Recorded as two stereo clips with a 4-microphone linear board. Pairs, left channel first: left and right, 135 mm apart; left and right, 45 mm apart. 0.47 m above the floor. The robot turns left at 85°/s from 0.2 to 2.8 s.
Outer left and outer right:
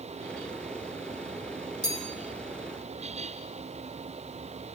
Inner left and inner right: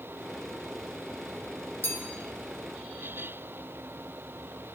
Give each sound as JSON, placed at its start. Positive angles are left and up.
{"t": 1.8, "sound": "a bell", "side_deg": 55, "distance_m": 5.0}